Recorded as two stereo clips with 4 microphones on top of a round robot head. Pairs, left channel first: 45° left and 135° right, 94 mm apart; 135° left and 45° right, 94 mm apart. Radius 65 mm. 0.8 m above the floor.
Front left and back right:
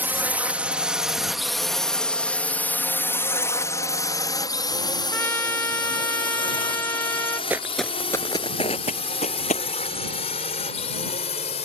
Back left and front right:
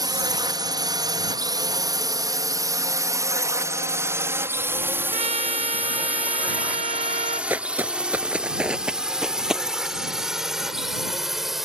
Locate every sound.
0.0 s a drone: 70° right; by 11.7 s 45° left
5.1 s a trumpet: 25° right
7.5 s footsteps: 90° right; by 9.7 s 40° left